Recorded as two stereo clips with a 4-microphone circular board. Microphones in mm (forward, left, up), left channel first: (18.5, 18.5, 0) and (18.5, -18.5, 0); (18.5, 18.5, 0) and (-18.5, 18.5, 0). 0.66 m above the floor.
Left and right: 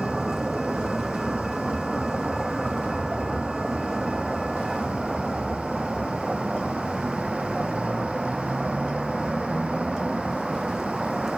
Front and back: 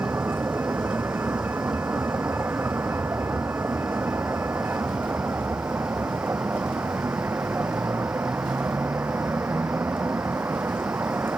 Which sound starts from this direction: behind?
A vehicle, at 0.0 s.